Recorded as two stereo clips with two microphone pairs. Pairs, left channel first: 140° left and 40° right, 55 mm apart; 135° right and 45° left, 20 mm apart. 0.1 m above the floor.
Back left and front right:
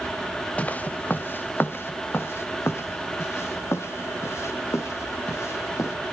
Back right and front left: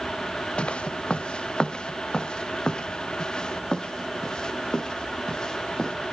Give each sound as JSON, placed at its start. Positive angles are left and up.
{"t": 0.6, "sound": "footsteps", "azimuth_deg": -155, "distance_m": 1.5}